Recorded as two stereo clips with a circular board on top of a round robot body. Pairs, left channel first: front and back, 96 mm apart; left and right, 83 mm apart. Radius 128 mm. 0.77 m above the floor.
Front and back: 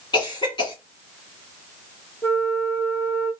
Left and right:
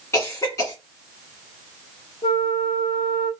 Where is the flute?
70° left, 1.1 m.